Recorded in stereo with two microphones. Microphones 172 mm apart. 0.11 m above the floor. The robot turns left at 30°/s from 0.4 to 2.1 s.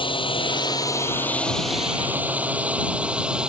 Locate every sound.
0.0 s a drone: 30° left (ahead or behind); by 3.5 s 5° right (ahead or behind)